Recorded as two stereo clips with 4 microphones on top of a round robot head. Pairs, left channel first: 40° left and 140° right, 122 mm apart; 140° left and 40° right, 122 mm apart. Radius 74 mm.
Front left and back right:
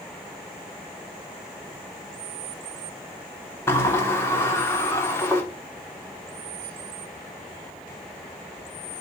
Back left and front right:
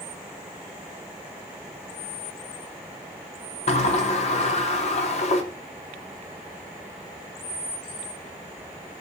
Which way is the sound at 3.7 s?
110° left.